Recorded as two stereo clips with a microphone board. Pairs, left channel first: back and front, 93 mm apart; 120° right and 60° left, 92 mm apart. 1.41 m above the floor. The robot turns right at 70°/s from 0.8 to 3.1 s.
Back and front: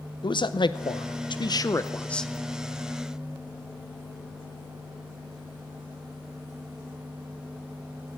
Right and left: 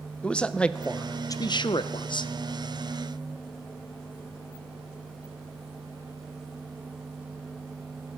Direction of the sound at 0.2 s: 165° left.